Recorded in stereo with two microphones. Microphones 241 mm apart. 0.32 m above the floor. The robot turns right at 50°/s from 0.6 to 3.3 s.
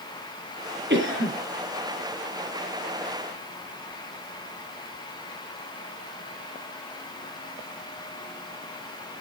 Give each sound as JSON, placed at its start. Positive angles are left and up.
{"t": 0.9, "sound": "a cough", "side_deg": -45, "distance_m": 5.5}